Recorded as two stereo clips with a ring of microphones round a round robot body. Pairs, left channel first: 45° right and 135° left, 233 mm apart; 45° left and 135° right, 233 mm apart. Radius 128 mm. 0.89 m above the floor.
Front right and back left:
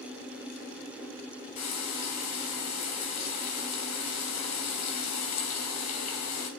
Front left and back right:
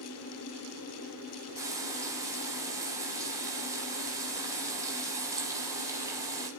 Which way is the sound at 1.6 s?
60° right.